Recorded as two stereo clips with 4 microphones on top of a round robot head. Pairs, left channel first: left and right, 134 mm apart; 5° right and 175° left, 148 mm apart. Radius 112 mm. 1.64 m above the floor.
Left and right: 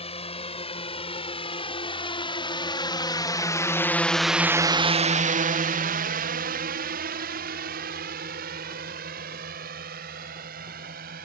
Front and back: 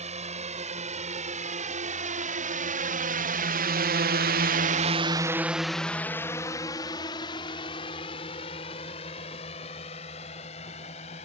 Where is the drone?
135° left; by 11.2 s 60° right.